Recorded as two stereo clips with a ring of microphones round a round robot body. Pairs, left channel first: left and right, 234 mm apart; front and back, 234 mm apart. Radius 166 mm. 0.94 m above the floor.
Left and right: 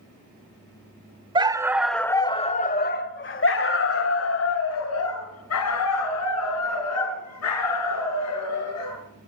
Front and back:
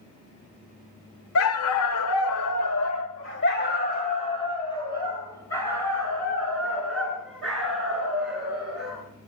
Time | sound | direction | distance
1.4 | a dog barking | 20° right | 1.3 m